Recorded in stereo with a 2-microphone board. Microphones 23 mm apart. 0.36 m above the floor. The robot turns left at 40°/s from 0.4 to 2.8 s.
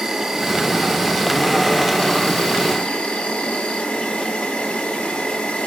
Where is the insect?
160° right, 1.3 m; by 5.7 s 105° left, 1.3 m.